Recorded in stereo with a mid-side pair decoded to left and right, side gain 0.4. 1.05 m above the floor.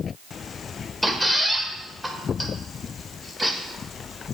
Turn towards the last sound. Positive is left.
turn(degrees=-5)